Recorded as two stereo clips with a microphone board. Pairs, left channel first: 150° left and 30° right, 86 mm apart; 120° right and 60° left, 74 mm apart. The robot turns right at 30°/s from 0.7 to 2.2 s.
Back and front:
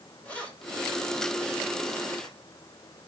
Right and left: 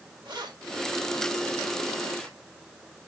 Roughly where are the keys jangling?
Left.